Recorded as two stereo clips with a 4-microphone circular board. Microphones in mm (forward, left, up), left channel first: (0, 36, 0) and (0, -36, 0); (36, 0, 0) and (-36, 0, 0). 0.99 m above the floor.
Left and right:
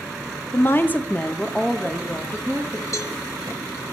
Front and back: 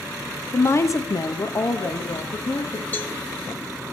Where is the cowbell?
60° left, 1.1 m.